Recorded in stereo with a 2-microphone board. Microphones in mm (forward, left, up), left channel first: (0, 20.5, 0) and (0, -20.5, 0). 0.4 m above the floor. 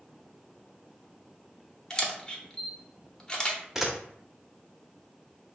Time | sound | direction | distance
1.9 | a camera shutter | 20° left (ahead or behind) | 0.8 m
3.8 | a camera shutter | 10° right (ahead or behind) | 0.7 m